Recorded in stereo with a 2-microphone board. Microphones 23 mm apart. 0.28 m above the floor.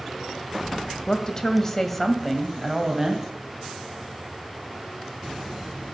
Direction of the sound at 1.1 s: 40° left (ahead or behind).